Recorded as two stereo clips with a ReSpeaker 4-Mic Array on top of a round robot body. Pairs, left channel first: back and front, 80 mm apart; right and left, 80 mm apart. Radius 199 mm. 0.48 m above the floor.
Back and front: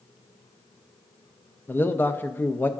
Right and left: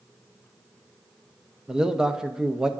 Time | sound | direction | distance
1.7 | a man speaking | 160° left | 0.9 m